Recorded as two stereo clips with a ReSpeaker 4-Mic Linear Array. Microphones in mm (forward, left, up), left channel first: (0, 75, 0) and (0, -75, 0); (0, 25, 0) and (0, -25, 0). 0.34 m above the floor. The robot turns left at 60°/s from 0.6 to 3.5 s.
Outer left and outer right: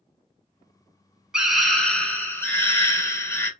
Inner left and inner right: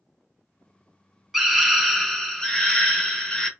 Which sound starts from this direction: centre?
A scream, at 1.3 s.